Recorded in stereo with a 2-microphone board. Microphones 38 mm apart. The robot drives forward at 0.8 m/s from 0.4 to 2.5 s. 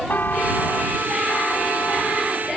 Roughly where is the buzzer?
Left.